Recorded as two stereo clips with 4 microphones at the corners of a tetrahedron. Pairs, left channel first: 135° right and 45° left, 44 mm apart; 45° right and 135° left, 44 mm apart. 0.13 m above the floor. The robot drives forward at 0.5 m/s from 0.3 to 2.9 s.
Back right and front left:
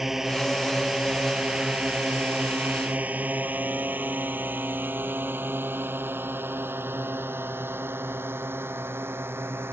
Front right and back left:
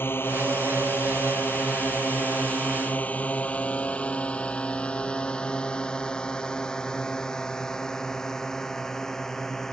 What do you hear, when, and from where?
0.0 s a drone: 35° right; by 9.7 s 35° left